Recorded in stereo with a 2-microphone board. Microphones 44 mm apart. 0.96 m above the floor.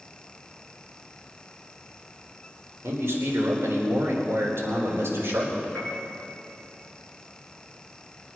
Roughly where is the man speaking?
Right.